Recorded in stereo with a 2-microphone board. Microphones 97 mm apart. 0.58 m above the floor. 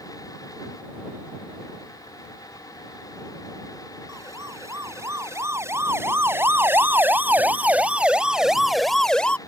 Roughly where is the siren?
Right.